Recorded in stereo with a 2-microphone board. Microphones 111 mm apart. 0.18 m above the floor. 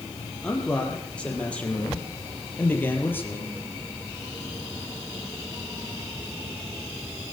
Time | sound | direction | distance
0.4 | a man speaking | 5° left (ahead or behind) | 6.5 m